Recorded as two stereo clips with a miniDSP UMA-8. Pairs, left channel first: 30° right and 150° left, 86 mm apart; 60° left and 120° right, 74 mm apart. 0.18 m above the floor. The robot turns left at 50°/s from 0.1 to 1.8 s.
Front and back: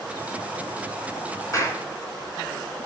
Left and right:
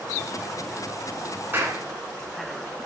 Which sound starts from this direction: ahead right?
A clap, at 1.5 s.